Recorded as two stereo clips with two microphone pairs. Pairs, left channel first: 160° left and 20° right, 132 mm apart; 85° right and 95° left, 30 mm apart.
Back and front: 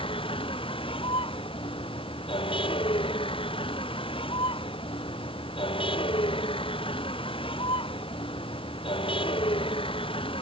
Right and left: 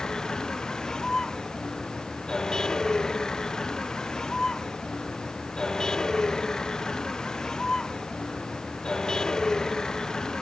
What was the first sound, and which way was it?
A vehicle, 155° right.